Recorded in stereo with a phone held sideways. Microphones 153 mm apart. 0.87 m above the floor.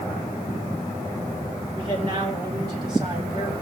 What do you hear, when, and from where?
1.8 s a man speaking: 30° right (ahead or behind), 2.5 m